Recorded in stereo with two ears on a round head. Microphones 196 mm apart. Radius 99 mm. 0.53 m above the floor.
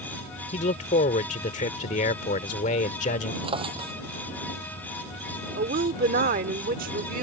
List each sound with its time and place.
0.5 s a man speaking: 35° left (ahead or behind)
3.4 s a drawer: 30° right (ahead or behind)
5.6 s a woman speaking: 40° right (ahead or behind)